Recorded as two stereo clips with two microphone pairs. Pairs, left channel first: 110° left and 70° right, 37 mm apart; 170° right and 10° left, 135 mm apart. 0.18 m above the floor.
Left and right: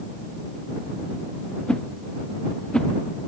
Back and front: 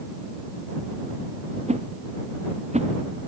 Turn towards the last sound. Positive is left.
turn(degrees=45)